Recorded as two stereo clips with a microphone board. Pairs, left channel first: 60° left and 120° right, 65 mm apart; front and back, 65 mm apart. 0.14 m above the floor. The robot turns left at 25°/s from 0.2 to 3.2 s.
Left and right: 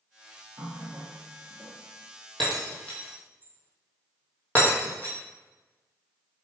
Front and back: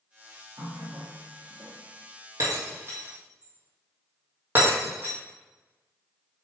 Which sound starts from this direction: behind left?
Breaking glass, at 2.4 s.